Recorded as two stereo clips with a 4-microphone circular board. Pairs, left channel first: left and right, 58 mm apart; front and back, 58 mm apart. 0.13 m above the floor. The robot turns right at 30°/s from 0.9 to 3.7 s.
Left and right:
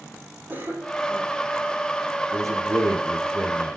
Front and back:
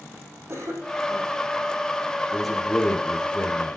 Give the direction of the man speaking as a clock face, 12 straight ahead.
3 o'clock.